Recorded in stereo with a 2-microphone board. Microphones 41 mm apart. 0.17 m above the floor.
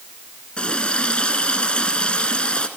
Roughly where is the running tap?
Left.